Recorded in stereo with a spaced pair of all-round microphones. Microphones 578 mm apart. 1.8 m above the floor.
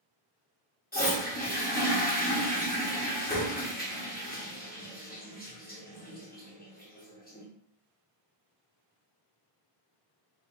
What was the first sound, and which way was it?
A toilet flushing, 15° left (ahead or behind).